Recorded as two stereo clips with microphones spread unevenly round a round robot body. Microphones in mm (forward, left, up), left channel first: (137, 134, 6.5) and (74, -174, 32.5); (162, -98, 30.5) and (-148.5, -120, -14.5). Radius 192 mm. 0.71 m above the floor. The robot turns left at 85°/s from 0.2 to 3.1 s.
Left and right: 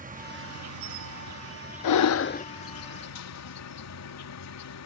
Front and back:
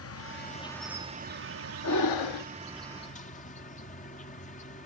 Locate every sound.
0.0 s an insect: 40° right; by 4.9 s 75° left
1.8 s breathing: 60° left; by 2.5 s 10° left